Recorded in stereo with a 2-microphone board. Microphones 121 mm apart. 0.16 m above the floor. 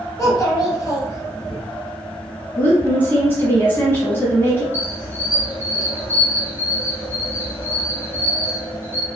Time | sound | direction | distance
0.2 | a child speaking | 30° left (ahead or behind) | 1.3 m
2.6 | a woman speaking | 20° left (ahead or behind) | 1.0 m
4.7 | a squeak | 20° right (ahead or behind) | 1.9 m